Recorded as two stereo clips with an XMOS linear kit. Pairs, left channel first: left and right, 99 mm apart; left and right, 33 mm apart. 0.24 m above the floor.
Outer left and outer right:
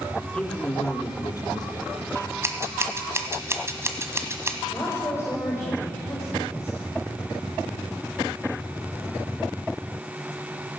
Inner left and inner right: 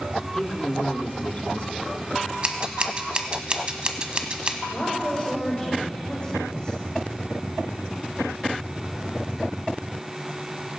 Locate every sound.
0.3 s a man speaking: 10° left (ahead or behind), 2.5 m; by 2.3 s 60° left (ahead or behind), 2 m
2.4 s scissors: 30° right (ahead or behind), 1.2 m
4.7 s a woman speaking: 30° left (ahead or behind), 8 m